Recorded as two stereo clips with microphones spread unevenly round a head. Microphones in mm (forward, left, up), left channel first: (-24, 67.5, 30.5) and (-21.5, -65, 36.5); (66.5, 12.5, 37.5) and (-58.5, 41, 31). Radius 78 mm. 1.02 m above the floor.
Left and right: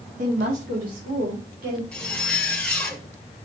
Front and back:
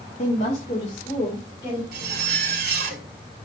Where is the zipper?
175° left, 1.6 m.